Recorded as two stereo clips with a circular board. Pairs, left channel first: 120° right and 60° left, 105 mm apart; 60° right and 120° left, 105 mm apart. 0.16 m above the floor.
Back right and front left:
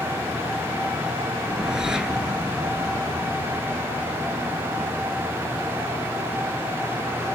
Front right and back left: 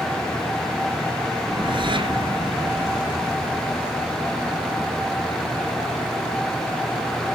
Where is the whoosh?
140° left, 1.8 m.